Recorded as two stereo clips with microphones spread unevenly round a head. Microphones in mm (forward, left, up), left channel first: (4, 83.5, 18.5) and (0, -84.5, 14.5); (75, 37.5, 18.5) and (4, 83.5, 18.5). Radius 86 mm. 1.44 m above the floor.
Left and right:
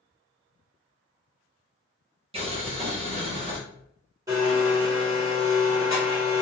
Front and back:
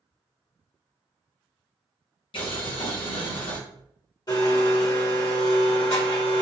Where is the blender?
25° right, 1.4 m.